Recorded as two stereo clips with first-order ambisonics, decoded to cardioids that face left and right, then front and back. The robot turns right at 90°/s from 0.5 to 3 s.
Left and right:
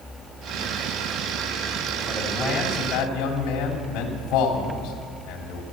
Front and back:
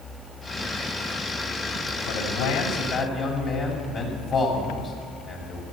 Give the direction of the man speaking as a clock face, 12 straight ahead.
1 o'clock.